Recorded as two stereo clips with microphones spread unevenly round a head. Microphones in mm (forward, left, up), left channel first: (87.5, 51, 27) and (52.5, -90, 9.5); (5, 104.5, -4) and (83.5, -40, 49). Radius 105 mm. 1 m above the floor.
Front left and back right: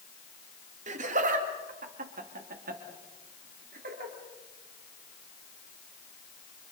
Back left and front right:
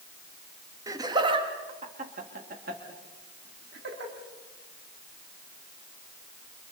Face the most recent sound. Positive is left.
turn(degrees=-100)